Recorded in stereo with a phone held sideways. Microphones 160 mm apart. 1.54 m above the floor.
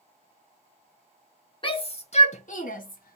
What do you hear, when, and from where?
1.6 s a shout: 30° left (ahead or behind), 1.3 m; by 3.2 s 65° left (ahead or behind), 1.3 m